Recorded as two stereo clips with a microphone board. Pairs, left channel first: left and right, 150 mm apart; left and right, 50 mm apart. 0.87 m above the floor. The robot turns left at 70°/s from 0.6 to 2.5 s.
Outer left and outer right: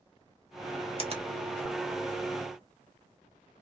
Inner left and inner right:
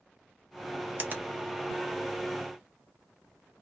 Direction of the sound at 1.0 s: 40° right (ahead or behind).